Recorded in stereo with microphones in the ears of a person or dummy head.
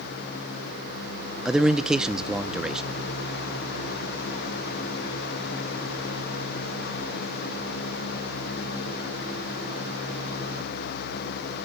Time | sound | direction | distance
1.4 | a man speaking | centre (ahead or behind) | 0.7 m